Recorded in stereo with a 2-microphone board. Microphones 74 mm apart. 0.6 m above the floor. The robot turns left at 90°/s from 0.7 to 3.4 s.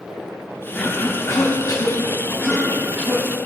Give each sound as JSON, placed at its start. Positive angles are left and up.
{"t": 0.8, "sound": "a cough", "side_deg": 5, "distance_m": 0.9}